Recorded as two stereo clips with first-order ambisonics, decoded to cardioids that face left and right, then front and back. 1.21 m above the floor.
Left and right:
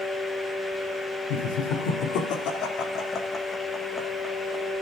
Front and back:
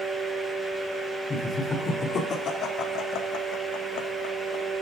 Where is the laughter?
75° left, 4 m; by 4.7 s 10° right, 2.5 m.